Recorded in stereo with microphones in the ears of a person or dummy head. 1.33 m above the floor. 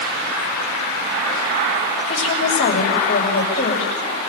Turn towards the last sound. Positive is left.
turn(degrees=35)  # may be behind; listen again after turning